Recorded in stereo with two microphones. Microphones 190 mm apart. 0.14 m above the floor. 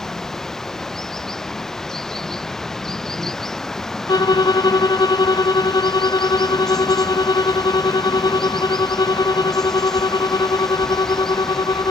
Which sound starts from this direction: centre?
Running water, at 0.0 s.